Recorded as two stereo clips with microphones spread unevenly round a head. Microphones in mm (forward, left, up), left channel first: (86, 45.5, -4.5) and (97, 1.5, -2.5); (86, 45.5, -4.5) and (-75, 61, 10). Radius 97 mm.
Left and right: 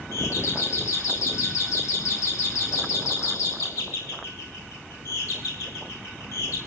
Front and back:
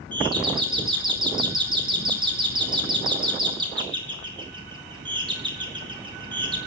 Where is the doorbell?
115° left, 2.5 m.